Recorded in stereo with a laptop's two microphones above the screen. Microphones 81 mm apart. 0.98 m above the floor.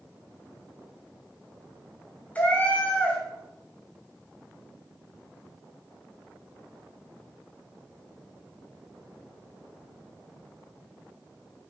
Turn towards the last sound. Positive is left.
turn(degrees=20)  # may be behind; listen again after turning